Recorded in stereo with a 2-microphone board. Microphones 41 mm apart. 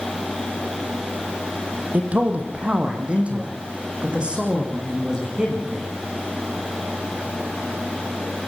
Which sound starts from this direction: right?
A man speaking, at 1.9 s.